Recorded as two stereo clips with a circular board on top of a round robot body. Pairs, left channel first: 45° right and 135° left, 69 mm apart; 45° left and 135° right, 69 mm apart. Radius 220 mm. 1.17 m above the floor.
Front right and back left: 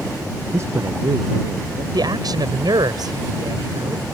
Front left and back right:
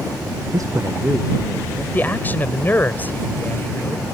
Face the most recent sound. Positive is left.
turn(degrees=110)